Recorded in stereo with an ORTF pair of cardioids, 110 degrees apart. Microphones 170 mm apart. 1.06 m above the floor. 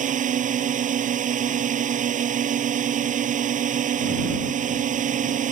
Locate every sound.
0.0 s a drone: 50° right